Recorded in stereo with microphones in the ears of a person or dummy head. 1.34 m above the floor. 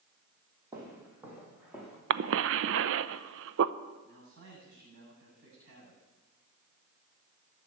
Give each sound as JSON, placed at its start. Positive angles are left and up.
{"t": 0.7, "sound": "footsteps", "side_deg": -15, "distance_m": 3.5}
{"t": 2.1, "sound": "a cough", "side_deg": -75, "distance_m": 0.6}
{"t": 4.0, "sound": "a man speaking", "side_deg": -65, "distance_m": 7.5}